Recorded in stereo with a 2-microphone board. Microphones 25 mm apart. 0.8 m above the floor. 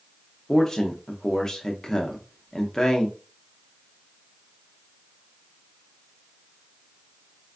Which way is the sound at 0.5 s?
20° left (ahead or behind).